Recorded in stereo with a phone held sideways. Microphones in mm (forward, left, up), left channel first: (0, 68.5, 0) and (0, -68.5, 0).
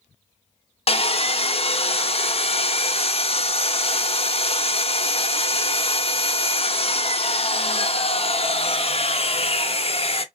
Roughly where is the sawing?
Left.